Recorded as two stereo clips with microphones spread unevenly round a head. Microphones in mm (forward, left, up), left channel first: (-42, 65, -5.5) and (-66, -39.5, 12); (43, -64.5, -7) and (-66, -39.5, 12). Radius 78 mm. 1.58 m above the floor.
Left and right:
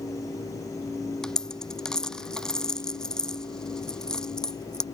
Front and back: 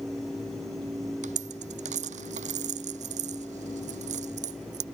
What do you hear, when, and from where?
1.2 s a dropped coin: 165° left